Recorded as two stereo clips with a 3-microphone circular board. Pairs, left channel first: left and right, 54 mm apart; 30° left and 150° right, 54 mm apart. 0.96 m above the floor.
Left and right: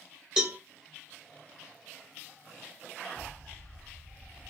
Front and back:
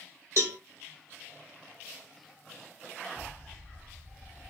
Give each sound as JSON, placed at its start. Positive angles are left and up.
{"t": 0.4, "sound": "a cowbell", "azimuth_deg": -165, "distance_m": 1.3}
{"t": 3.2, "sound": "an explosion", "azimuth_deg": -105, "distance_m": 0.6}